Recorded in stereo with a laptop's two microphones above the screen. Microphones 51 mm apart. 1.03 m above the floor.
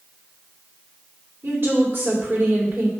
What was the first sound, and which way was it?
A woman speaking, 50° right (ahead or behind).